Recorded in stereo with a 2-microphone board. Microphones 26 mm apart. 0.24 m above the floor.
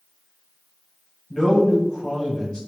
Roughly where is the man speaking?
Left.